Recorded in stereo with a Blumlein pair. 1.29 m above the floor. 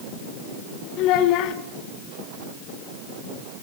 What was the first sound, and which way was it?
A child speaking, 40° left.